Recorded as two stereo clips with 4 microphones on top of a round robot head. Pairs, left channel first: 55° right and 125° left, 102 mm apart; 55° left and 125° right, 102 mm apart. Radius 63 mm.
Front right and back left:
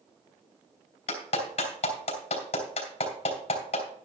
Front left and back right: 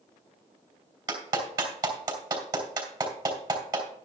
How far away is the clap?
About 3.5 m.